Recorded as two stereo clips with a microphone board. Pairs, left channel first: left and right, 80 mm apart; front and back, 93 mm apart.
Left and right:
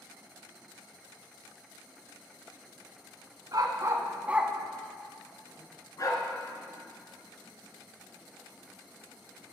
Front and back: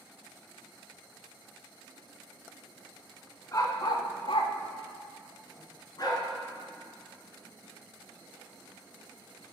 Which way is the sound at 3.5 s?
55° right.